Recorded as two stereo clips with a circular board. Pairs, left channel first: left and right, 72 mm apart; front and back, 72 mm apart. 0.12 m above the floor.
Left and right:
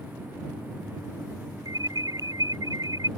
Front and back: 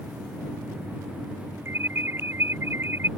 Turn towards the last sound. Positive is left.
turn(degrees=-125)